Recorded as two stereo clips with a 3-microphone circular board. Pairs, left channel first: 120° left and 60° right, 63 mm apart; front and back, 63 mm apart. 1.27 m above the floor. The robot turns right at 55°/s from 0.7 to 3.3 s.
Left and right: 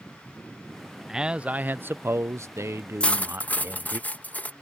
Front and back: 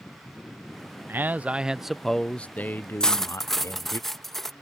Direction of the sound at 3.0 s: 65° left.